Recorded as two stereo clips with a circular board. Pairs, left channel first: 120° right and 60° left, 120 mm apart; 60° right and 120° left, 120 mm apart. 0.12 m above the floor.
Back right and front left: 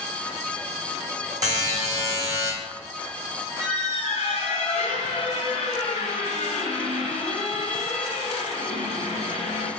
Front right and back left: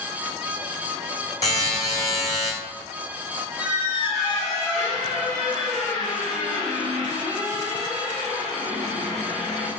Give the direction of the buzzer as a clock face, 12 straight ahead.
12 o'clock.